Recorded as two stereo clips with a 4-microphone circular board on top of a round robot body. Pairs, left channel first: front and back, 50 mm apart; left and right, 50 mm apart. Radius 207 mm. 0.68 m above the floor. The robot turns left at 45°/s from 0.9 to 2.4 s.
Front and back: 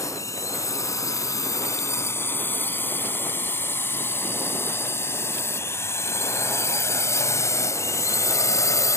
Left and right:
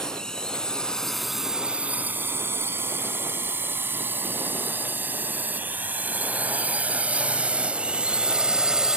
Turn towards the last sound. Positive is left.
turn(degrees=-10)